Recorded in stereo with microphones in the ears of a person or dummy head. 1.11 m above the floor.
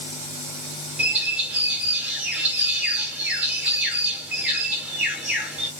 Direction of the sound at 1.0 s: 5° right (ahead or behind).